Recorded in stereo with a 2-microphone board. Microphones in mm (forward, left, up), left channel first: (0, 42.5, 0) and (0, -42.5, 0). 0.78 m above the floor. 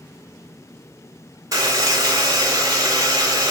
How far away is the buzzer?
About 2.5 m.